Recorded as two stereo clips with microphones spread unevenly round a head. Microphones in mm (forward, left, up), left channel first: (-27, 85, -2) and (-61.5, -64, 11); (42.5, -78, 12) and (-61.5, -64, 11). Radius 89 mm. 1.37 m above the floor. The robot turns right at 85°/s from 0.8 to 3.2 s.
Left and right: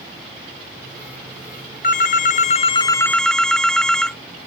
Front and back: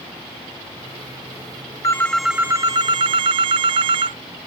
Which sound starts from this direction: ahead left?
A phone ringing, at 1.8 s.